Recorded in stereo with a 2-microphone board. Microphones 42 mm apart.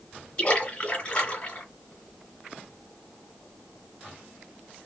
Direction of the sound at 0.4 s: 30° left (ahead or behind).